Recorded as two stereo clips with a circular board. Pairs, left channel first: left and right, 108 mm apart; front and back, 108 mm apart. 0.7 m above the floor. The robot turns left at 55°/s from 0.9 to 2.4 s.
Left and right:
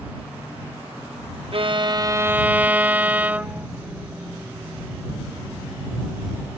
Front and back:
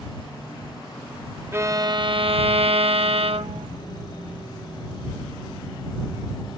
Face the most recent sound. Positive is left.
turn(degrees=-165)